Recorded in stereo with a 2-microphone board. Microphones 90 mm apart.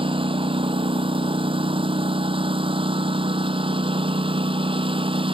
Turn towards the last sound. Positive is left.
turn(degrees=-70)  # may be behind; listen again after turning